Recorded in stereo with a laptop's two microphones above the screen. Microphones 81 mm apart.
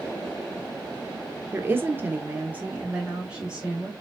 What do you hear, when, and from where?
1.5 s a woman speaking: 25° right (ahead or behind), 0.8 m; by 3.9 s 10° right (ahead or behind), 1.2 m